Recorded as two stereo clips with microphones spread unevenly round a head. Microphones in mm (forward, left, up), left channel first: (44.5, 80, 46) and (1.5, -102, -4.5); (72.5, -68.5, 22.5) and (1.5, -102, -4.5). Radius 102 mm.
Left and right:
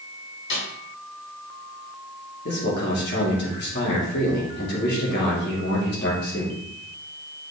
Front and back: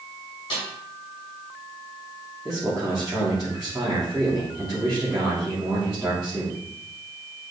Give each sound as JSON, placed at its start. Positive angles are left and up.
{"t": 0.5, "sound": "a snare drum", "azimuth_deg": 55, "distance_m": 4.0}
{"t": 2.5, "sound": "a man speaking", "azimuth_deg": 120, "distance_m": 3.0}